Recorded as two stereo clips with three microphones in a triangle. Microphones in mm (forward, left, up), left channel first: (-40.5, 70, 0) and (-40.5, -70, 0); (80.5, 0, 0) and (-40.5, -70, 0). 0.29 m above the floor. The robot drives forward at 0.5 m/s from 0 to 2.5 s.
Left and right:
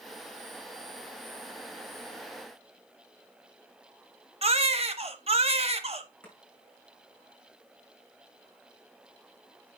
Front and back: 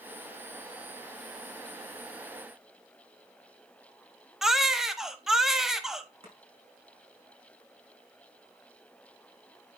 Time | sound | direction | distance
4.4 | a baby crying | 65° right | 0.8 m
6.2 | chopping | 170° left | 5 m